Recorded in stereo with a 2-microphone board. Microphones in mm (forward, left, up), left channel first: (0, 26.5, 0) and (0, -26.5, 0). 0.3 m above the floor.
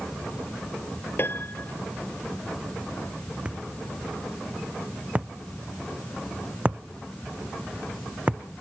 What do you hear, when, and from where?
1.2 s a piano: 45° left (ahead or behind)
3.5 s a thud: 25° right (ahead or behind)